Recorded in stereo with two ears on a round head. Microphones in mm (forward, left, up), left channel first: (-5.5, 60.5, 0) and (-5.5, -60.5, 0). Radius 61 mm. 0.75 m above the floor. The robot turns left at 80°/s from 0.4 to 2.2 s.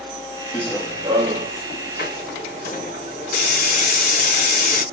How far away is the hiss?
About 3.5 m.